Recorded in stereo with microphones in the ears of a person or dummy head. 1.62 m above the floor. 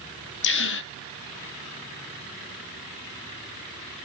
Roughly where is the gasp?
Left.